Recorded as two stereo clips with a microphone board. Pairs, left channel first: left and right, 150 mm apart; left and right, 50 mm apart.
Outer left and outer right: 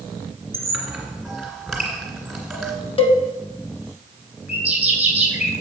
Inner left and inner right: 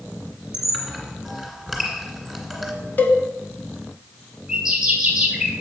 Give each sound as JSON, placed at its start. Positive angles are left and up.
{"t": 0.5, "sound": "a squeak", "side_deg": 0, "distance_m": 2.0}
{"t": 3.0, "sound": "a cowbell", "side_deg": 35, "distance_m": 0.8}
{"t": 4.5, "sound": "a bird", "side_deg": -10, "distance_m": 2.0}